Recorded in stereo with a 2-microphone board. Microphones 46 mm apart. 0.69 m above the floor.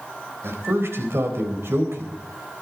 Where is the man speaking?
75° right (ahead or behind), 4 m.